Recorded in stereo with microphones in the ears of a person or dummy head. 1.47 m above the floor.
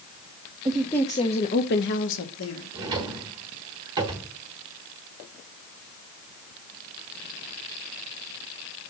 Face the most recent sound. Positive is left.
turn(degrees=-15)  # may be behind; listen again after turning